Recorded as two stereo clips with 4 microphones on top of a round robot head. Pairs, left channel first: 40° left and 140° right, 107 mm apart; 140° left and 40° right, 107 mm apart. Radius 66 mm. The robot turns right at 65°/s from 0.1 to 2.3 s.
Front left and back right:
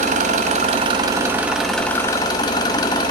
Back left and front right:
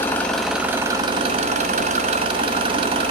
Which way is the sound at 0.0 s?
150° right.